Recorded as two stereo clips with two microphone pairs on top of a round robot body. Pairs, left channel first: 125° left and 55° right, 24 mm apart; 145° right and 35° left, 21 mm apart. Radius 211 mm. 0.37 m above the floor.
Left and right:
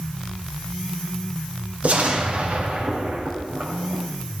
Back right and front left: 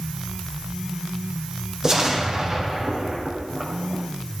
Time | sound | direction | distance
1.8 | an explosion | 25° right | 3 m